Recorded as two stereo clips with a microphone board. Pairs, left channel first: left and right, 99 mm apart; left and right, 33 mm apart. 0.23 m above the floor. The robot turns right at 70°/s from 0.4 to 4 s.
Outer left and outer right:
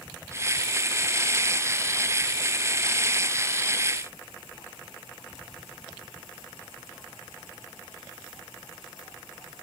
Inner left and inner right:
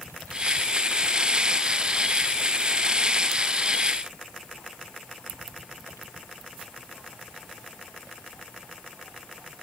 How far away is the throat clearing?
I don't hear throat clearing.